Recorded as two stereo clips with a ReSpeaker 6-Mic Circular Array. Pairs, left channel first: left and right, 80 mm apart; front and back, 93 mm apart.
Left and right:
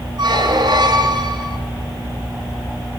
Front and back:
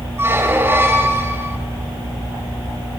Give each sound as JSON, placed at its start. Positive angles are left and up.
{"t": 0.2, "sound": "a squeak", "azimuth_deg": -115, "distance_m": 2.0}